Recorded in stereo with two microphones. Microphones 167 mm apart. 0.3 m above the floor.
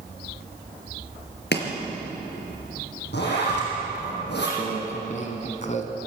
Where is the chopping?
80° left, 4 m.